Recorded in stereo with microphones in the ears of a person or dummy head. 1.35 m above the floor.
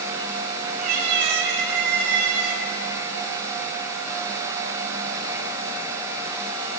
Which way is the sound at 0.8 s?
45° right (ahead or behind).